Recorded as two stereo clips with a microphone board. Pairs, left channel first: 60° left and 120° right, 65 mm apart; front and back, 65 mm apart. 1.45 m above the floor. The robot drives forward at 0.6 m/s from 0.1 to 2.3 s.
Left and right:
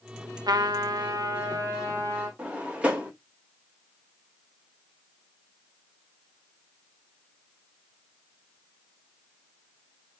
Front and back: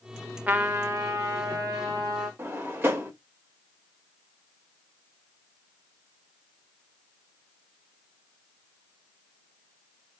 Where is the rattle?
I don't hear a rattle.